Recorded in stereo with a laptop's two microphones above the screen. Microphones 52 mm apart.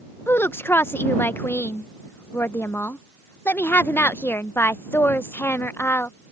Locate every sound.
0.3 s a woman speaking: 45° left (ahead or behind)